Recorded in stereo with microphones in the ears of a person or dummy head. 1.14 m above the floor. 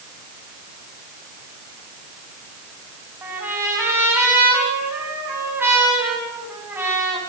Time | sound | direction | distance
3.2 | a trumpet | 10° right (ahead or behind) | 6.5 m